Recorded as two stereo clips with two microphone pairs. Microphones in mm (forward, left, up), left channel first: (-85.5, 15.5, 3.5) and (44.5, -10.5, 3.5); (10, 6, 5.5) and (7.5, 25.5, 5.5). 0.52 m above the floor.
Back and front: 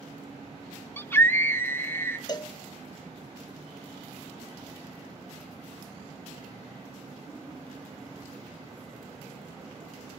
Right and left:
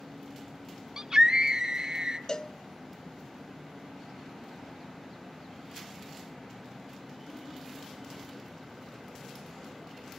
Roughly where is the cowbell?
Behind right.